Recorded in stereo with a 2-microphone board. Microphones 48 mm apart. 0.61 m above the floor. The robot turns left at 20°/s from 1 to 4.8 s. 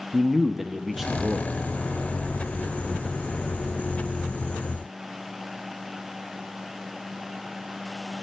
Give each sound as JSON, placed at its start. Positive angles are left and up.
{"t": 0.1, "sound": "a man speaking", "side_deg": -5, "distance_m": 0.7}